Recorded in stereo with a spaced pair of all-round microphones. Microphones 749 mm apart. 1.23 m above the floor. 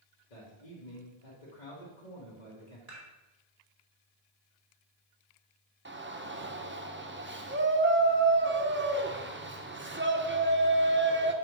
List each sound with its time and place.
0.3 s a man speaking: 65° left (ahead or behind), 1.9 m
2.9 s dishes clattering: 50° right (ahead or behind), 2.5 m
5.8 s a shout: 15° right (ahead or behind), 0.8 m